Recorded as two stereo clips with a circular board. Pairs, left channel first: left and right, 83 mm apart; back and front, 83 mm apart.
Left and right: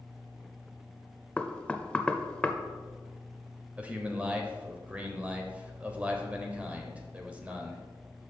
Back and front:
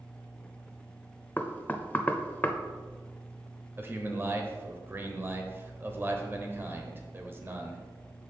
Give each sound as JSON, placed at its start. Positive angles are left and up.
{"t": 1.4, "sound": "knocking", "azimuth_deg": 150, "distance_m": 0.6}
{"t": 3.8, "sound": "a man speaking", "azimuth_deg": -30, "distance_m": 1.0}